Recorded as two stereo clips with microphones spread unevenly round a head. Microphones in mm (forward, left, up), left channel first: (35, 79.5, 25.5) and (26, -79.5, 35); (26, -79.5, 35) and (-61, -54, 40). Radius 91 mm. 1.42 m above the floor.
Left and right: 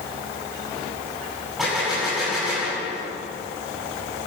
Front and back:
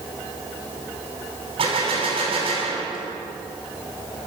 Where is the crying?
No crying in this recording.